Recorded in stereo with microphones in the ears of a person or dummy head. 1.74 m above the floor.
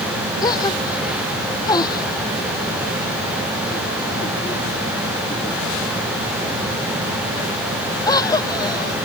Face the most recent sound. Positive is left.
turn(degrees=20)  # may be behind; listen again after turning